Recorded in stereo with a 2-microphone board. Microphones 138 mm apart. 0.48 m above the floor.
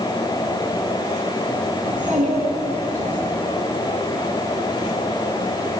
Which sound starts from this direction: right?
A child speaking, at 1.8 s.